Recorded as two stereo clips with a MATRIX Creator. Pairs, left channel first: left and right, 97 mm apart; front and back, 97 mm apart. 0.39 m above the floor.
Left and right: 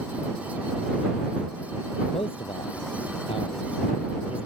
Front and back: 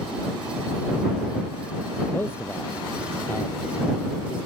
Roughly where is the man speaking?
Ahead left.